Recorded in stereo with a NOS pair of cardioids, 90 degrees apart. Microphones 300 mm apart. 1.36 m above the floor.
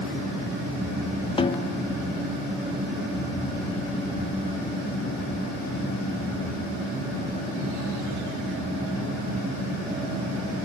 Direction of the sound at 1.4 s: 20° left.